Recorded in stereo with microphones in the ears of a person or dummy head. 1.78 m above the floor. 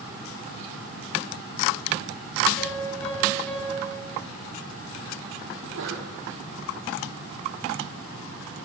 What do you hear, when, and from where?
2.6 s a piano: 10° left (ahead or behind), 8 m
5.5 s a sneeze: 80° right, 5.5 m